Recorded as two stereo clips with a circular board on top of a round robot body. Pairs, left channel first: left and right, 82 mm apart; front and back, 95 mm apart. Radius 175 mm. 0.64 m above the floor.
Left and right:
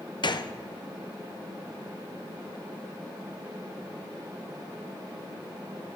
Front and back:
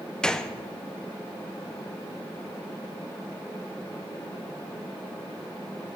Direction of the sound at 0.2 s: 80° left.